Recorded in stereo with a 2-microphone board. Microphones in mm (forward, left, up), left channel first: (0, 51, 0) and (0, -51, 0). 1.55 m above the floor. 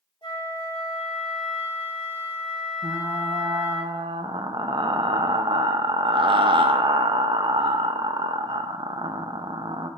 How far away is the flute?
About 1.8 m.